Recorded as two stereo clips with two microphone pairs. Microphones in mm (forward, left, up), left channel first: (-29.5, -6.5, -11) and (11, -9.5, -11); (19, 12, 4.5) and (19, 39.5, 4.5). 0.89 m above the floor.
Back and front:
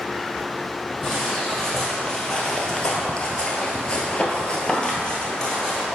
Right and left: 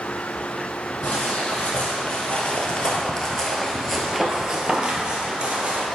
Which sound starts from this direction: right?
Footsteps, at 1.0 s.